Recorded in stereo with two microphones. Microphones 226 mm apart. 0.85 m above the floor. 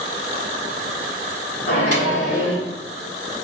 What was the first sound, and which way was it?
A microwave, 75° left (ahead or behind).